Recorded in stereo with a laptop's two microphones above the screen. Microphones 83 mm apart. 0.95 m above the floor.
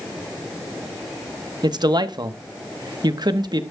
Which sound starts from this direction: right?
A man speaking, at 1.6 s.